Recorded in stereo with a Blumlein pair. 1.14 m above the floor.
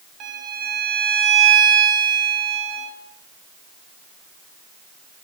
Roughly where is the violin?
Ahead right.